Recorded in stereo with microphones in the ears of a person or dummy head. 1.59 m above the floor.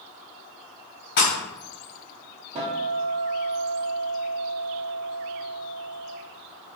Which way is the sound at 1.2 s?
45° left (ahead or behind).